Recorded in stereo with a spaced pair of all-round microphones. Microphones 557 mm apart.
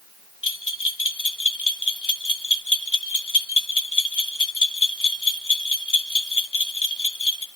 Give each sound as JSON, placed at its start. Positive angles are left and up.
{"t": 0.4, "sound": "a bell", "side_deg": 35, "distance_m": 1.3}